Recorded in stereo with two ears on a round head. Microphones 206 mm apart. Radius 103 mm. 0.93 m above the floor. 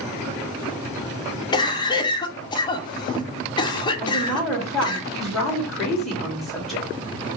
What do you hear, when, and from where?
1.5 s a cough: 20° left (ahead or behind), 0.5 m
4.0 s a woman speaking: centre (ahead or behind), 1.5 m